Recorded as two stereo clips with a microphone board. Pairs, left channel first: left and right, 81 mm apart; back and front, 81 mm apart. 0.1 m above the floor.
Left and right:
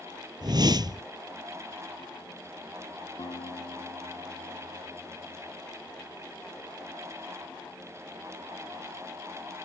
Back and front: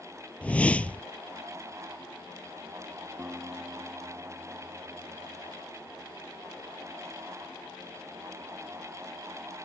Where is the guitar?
75° left.